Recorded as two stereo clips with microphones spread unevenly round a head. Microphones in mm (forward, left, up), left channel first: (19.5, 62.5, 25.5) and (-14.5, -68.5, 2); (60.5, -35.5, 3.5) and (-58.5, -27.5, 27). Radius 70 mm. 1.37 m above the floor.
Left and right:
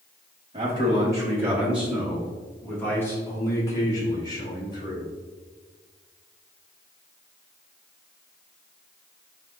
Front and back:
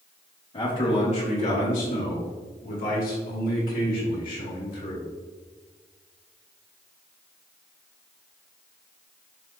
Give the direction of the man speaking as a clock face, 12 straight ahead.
2 o'clock.